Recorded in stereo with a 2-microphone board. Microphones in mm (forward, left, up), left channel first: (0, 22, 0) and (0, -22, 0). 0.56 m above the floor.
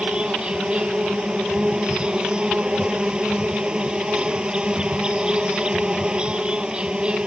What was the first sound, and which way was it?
An insect, 20° right (ahead or behind).